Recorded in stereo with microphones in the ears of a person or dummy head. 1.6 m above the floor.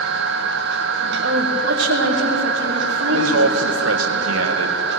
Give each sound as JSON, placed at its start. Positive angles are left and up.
{"t": 0.0, "sound": "a machine running", "side_deg": -65, "distance_m": 1.5}
{"t": 1.2, "sound": "a woman speaking", "side_deg": -65, "distance_m": 3.0}
{"t": 3.1, "sound": "a man speaking", "side_deg": -75, "distance_m": 2.0}